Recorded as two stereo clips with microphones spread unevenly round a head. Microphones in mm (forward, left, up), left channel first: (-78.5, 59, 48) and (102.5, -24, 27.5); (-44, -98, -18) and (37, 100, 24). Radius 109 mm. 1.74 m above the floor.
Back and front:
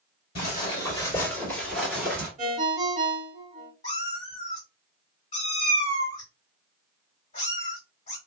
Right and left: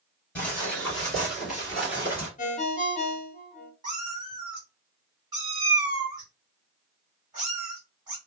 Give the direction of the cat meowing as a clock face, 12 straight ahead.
8 o'clock.